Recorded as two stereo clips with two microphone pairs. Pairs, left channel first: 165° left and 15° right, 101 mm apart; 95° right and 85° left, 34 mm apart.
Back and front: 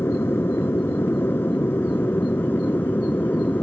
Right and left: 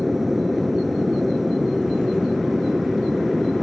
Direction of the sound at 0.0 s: 165° left.